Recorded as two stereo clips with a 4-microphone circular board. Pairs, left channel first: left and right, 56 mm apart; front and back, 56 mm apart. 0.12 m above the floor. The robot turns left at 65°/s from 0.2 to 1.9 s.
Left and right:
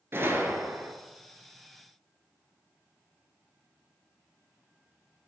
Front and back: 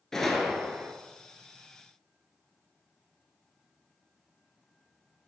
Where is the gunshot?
80° right, 1.0 m; by 0.9 s 125° right, 1.0 m.